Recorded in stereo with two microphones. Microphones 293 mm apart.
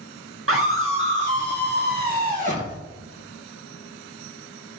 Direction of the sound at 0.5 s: 50° right (ahead or behind).